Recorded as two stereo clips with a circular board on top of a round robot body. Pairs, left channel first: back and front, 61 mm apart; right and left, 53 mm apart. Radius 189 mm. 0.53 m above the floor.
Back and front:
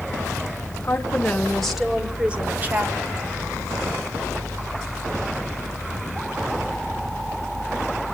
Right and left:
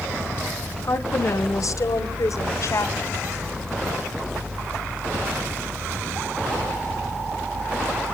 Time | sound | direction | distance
0.8 | a woman speaking | 120° right | 2.5 m